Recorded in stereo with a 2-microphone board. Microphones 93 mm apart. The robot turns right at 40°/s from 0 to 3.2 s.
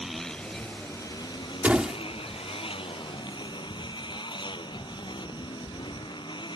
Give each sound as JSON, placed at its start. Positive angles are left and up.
{"t": 0.0, "sound": "a motorcycle", "azimuth_deg": -5}
{"t": 1.6, "sound": "a door slam", "side_deg": -15}